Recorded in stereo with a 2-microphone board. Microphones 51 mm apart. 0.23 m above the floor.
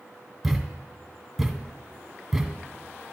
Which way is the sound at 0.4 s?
5° right (ahead or behind).